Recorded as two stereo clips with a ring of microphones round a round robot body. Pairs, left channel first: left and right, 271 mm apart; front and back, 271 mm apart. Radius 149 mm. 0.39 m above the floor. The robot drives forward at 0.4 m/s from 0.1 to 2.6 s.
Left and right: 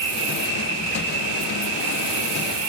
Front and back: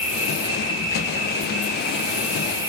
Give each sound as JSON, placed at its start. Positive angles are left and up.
{"t": 0.0, "sound": "an insect", "azimuth_deg": -65, "distance_m": 1.8}